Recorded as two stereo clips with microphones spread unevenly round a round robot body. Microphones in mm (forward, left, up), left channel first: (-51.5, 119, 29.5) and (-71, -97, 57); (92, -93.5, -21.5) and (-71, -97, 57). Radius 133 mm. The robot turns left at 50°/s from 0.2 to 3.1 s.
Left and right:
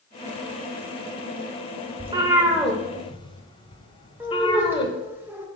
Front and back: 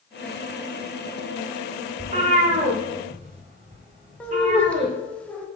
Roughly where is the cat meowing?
Behind right.